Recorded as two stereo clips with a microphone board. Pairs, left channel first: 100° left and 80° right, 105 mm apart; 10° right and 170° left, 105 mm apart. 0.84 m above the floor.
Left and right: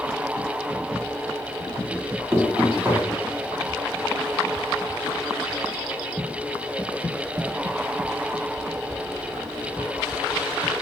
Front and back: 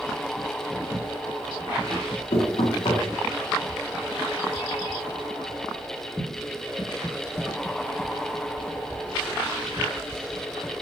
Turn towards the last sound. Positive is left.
turn(degrees=-10)